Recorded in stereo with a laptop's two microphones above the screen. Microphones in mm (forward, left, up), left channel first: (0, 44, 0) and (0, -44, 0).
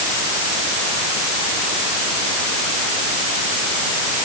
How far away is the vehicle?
No vehicle in this recording.